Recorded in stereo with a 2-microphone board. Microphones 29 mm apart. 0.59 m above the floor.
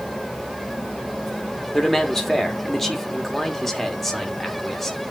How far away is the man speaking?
About 1.4 m.